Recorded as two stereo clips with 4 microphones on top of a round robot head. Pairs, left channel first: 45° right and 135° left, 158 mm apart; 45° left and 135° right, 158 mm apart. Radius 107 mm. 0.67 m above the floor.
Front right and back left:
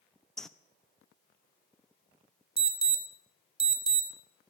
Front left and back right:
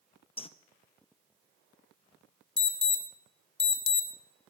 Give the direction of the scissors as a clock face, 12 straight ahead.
No scissors in this recording.